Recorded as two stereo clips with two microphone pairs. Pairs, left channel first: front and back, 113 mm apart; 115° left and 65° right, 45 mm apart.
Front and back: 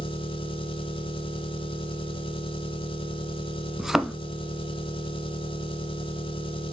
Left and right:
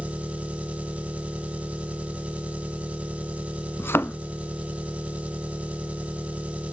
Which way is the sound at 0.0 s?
20° right.